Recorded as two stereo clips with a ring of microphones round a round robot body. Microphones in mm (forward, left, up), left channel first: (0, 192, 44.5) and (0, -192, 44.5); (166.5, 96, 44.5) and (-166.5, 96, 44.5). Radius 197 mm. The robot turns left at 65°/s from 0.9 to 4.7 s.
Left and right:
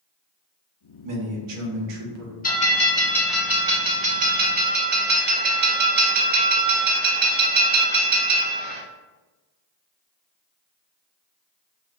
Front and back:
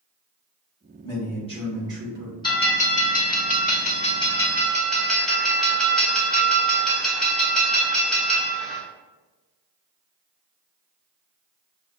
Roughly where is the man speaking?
Ahead right.